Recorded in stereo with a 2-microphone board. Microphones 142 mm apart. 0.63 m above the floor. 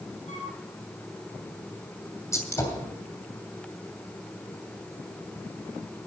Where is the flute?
55° left (ahead or behind), 6 m.